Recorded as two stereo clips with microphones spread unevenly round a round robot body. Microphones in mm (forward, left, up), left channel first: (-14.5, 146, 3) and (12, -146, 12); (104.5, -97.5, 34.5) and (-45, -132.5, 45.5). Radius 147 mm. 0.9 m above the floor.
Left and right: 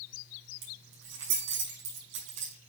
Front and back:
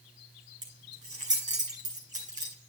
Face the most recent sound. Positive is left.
turn(degrees=-125)